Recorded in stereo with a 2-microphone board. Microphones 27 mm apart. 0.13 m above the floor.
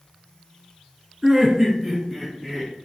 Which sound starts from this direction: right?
Laughter, at 1.2 s.